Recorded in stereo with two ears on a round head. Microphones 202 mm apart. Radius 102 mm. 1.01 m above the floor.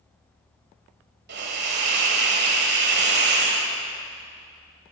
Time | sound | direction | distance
1.3 | a hiss | 50° right (ahead or behind) | 1.4 m